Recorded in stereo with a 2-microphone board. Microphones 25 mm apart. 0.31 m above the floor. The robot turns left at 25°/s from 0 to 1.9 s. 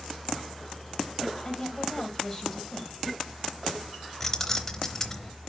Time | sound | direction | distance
1.4 | a woman speaking | 20° left (ahead or behind) | 1.4 m
4.2 | keys jangling | 15° left (ahead or behind) | 0.8 m